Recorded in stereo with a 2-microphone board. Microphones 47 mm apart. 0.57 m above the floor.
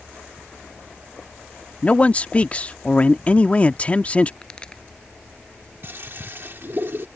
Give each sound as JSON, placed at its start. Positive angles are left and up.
{"t": 1.8, "sound": "a man speaking", "side_deg": 30}
{"t": 4.4, "sound": "a pop", "side_deg": 15}
{"t": 5.8, "sound": "a toilet flushing", "side_deg": -50}